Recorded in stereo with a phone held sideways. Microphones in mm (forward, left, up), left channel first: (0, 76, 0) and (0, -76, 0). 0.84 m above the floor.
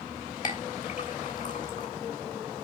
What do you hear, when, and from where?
0.4 s a clink: 60° left (ahead or behind), 2.5 m